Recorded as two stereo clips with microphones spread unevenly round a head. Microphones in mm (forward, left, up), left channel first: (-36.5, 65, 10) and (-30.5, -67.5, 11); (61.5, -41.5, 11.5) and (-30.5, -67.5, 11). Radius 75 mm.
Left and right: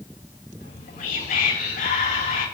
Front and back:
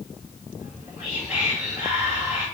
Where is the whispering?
115° left, 8.5 m.